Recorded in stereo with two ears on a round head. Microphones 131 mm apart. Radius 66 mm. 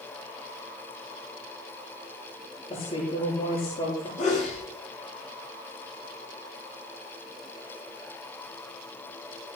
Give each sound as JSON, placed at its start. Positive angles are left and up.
{"t": 2.7, "sound": "a woman speaking", "side_deg": 45, "distance_m": 9.5}
{"t": 4.2, "sound": "a sneeze", "side_deg": 60, "distance_m": 6.0}